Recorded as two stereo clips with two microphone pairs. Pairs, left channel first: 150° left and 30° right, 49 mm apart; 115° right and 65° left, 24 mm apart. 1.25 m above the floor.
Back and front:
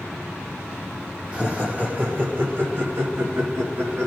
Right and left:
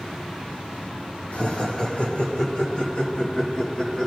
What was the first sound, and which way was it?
Laughter, 95° right.